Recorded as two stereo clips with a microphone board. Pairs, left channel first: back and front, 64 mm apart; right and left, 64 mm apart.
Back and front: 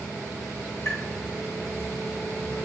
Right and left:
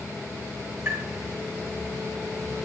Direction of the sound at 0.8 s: 135° left.